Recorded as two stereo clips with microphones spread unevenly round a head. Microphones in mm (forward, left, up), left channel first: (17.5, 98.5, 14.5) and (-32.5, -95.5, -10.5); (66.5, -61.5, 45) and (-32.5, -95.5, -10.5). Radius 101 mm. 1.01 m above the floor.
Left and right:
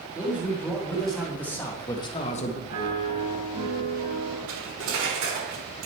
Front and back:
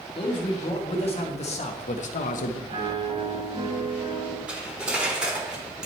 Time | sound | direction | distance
0.1 | a man speaking | 20° right | 2 m
2.7 | a piano | 110° right | 4 m
4.5 | cutlery clinking | 75° right | 1.6 m